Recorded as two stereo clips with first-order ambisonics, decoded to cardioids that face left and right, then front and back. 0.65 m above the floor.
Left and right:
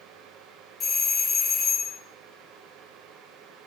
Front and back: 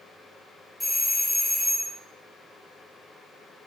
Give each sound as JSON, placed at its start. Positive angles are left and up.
{"t": 0.8, "sound": "a doorbell", "azimuth_deg": 95, "distance_m": 0.9}